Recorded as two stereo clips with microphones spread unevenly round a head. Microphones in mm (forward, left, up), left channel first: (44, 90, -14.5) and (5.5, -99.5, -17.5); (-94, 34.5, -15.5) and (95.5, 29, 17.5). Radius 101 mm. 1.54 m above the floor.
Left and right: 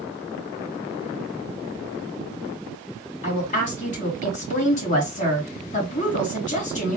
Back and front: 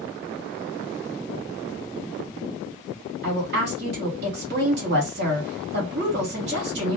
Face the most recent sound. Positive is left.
turn(degrees=25)